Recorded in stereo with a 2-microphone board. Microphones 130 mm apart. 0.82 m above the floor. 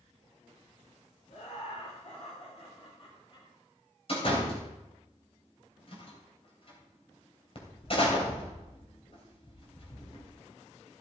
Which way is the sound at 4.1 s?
45° left (ahead or behind).